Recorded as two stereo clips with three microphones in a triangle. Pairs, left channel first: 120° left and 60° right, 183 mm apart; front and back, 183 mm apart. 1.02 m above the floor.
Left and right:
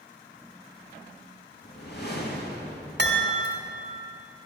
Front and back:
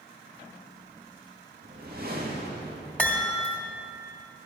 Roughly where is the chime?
Right.